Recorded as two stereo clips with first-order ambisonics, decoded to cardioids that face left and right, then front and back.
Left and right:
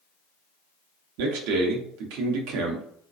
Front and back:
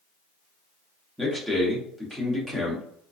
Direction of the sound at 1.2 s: 95° right.